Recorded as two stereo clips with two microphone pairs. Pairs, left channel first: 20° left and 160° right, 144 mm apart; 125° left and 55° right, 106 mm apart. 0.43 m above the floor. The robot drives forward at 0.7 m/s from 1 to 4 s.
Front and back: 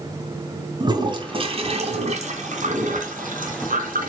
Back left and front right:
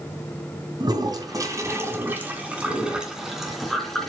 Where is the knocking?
No knocking in this recording.